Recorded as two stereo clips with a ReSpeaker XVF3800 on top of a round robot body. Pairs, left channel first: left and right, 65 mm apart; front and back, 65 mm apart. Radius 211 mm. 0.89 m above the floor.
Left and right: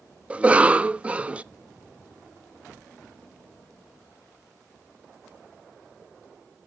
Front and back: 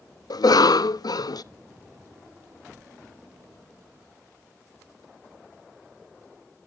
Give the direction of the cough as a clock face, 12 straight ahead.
1 o'clock.